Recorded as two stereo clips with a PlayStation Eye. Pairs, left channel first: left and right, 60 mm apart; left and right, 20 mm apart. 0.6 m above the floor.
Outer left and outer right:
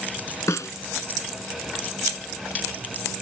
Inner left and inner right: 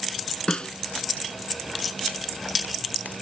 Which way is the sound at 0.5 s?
60° left (ahead or behind).